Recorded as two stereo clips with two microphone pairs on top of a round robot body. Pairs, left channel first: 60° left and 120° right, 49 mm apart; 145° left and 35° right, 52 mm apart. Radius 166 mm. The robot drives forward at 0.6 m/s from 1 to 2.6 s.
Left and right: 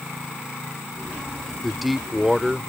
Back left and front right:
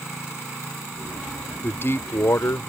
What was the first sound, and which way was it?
A man speaking, 150° left.